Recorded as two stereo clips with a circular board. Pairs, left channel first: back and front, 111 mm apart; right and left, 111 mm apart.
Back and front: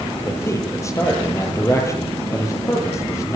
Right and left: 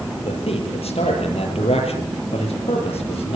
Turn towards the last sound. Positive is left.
turn(degrees=-115)